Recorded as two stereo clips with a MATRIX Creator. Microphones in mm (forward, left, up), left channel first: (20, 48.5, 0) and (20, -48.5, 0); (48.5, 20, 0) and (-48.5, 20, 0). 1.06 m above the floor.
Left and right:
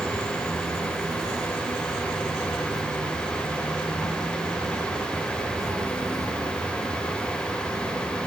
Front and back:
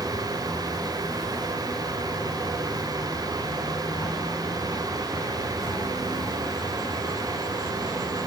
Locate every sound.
0.0 s an insect: 35° right, 2.5 m